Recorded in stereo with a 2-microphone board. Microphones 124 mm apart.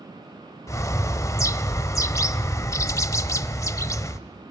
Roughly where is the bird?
Left.